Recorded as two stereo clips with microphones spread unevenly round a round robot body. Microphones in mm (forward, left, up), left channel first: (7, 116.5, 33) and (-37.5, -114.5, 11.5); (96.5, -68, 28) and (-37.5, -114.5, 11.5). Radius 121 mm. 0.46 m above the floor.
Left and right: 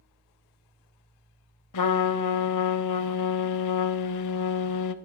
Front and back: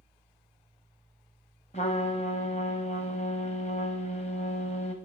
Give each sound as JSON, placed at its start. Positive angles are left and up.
{"t": 1.7, "sound": "a trumpet", "azimuth_deg": 85, "distance_m": 0.5}